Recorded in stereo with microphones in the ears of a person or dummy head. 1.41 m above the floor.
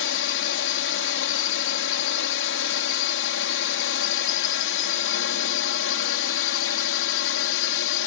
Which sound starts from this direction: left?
A drone, at 0.0 s.